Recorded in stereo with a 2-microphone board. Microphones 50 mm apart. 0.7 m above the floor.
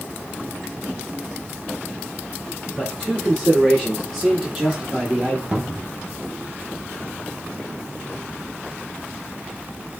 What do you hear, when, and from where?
2.8 s a man speaking: 15° left (ahead or behind), 2.0 m; by 5.4 s 30° right (ahead or behind), 1.1 m
5.5 s a cupboard door: 25° right (ahead or behind), 0.7 m